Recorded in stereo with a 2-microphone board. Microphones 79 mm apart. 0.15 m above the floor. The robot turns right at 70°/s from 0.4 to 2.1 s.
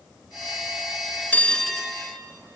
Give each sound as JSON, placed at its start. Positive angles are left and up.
{"t": 1.3, "sound": "a bell", "azimuth_deg": 150, "distance_m": 0.7}